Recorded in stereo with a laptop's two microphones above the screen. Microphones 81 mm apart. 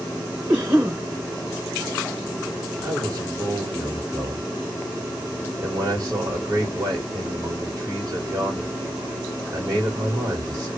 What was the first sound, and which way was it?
A cough, 35° right (ahead or behind).